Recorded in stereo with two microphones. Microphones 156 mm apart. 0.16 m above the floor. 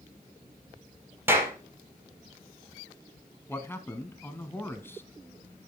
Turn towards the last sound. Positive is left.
turn(degrees=15)  # may be behind; listen again after turning